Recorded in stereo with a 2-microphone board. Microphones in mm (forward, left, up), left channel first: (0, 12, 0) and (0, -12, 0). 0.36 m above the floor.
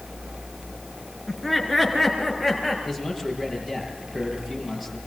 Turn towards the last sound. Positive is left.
turn(degrees=-5)  # may be behind; listen again after turning